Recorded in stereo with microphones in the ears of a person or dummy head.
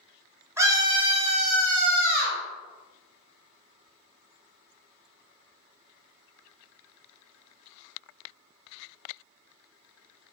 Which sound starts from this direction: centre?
A scream, at 0.6 s.